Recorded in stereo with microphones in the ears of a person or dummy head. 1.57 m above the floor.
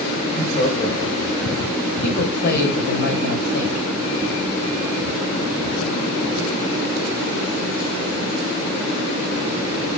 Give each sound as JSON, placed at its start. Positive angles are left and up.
{"t": 0.2, "sound": "laughter", "side_deg": 45, "distance_m": 6.0}
{"t": 2.0, "sound": "a man speaking", "side_deg": 50, "distance_m": 6.0}